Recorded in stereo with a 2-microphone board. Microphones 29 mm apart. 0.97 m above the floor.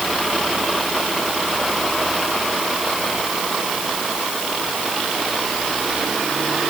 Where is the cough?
I don't hear a cough.